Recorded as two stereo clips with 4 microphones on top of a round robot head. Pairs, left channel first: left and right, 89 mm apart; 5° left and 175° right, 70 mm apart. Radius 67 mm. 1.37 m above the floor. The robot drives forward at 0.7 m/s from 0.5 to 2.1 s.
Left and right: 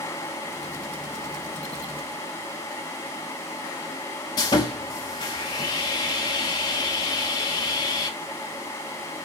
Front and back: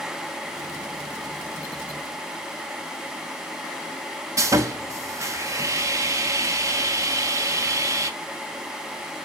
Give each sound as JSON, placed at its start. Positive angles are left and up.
{"t": 4.4, "sound": "sawing", "azimuth_deg": 145, "distance_m": 1.0}